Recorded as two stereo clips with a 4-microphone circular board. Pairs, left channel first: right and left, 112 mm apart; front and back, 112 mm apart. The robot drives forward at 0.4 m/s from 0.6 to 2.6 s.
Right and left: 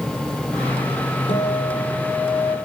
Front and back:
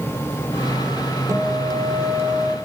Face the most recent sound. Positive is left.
turn(degrees=-120)